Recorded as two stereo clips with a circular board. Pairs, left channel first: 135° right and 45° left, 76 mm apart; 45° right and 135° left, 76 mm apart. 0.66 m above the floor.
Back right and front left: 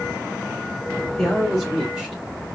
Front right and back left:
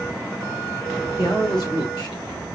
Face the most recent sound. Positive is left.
turn(degrees=-30)